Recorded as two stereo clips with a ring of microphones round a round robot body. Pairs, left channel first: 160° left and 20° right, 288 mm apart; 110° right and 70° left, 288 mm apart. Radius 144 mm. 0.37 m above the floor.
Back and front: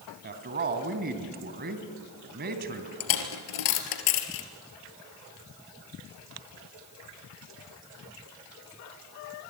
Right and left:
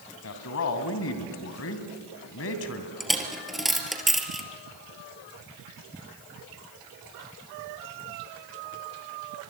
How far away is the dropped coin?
About 3 m.